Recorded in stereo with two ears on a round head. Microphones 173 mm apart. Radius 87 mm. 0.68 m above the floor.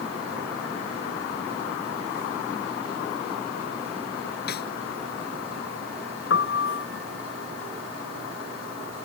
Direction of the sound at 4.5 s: 55° left (ahead or behind).